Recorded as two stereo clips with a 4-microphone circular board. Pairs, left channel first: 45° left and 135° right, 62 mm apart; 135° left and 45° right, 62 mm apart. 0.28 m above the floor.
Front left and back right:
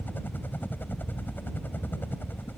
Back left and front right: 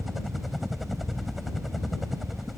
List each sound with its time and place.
0.0 s a helicopter: 45° left